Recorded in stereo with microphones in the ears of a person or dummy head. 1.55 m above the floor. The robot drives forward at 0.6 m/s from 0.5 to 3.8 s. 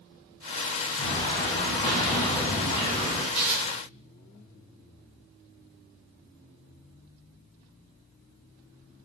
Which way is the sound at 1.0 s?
25° left (ahead or behind).